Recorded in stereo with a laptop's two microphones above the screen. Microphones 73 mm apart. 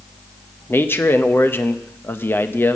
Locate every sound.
0.7 s a man speaking: 30° left (ahead or behind), 0.6 m